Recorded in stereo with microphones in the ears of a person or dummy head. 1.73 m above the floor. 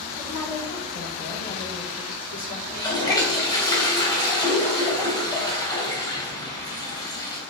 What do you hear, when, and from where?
0.2 s a woman speaking: 10° left (ahead or behind), 5.5 m; by 2.6 s 45° left (ahead or behind), 5.5 m
2.7 s a toilet flushing: 20° left (ahead or behind), 3 m